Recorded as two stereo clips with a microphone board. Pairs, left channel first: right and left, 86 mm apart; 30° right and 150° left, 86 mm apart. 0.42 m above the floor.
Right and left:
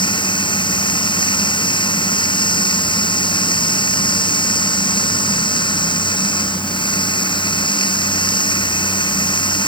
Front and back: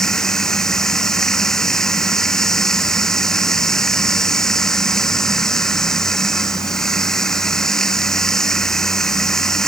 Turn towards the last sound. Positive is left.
turn(degrees=-115)